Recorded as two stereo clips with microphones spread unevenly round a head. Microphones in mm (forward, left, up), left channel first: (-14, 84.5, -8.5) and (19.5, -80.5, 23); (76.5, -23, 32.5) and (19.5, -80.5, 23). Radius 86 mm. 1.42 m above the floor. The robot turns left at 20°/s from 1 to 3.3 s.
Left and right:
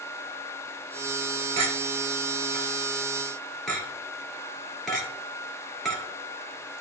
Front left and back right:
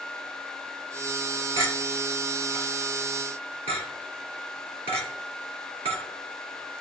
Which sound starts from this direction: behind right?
A clink, at 1.6 s.